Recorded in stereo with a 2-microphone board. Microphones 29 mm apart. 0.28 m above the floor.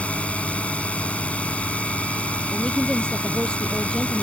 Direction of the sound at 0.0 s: 50° left (ahead or behind).